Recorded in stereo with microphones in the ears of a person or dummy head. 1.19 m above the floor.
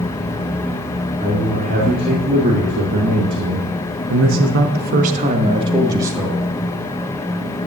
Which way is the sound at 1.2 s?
40° right (ahead or behind).